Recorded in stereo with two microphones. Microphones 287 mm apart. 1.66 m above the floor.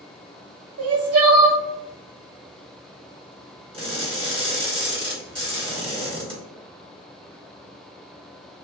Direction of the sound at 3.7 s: 20° right (ahead or behind).